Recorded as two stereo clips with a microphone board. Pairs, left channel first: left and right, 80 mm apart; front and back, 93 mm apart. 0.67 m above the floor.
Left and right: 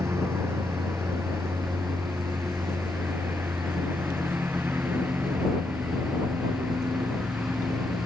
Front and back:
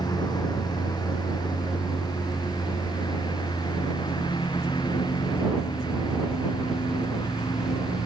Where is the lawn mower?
35° right; by 8.1 s 20° right.